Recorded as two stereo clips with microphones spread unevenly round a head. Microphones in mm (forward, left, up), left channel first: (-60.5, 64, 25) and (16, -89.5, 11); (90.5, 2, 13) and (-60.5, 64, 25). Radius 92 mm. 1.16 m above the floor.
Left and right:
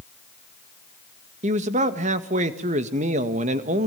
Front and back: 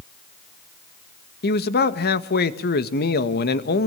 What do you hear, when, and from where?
1.4 s a man speaking: 15° right, 1.8 m